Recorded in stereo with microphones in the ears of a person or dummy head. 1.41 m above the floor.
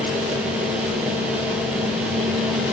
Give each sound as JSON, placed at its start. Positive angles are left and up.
{"t": 0.0, "sound": "a fan", "side_deg": -5, "distance_m": 0.9}